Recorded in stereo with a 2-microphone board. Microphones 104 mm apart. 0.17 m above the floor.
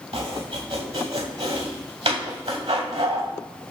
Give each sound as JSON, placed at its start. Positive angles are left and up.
{"t": 0.1, "sound": "chopping", "side_deg": -75, "distance_m": 4.5}